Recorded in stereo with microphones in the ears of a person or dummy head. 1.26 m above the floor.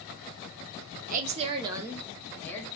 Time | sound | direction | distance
1.1 | a woman speaking | 45° right (ahead or behind) | 0.7 m